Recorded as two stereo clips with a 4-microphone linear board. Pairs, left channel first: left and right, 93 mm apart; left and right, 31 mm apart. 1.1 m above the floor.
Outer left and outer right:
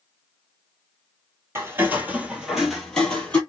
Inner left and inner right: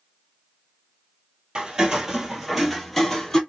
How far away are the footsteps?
About 1.2 m.